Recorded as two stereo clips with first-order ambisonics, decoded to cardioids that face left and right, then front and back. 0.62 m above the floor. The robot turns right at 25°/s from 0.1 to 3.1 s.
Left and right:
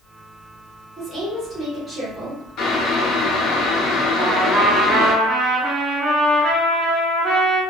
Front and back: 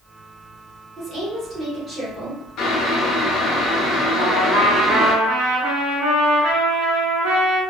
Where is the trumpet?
165° right, 1.3 m.